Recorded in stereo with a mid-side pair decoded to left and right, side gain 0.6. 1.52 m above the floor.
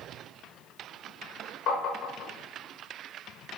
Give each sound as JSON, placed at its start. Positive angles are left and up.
{"t": 1.7, "sound": "tapping", "azimuth_deg": 60, "distance_m": 0.6}